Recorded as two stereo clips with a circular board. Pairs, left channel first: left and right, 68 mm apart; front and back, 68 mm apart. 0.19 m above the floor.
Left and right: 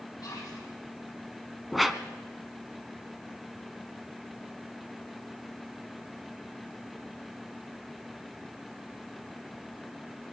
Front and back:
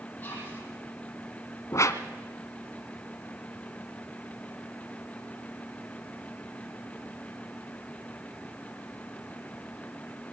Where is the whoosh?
Straight ahead, 1.0 m.